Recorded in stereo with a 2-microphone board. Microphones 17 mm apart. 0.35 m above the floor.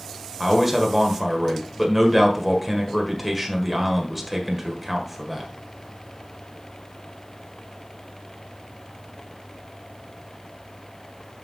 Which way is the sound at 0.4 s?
5° right (ahead or behind).